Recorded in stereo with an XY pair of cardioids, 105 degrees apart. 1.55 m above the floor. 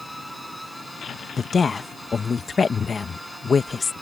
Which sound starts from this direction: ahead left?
A woman speaking, at 1.4 s.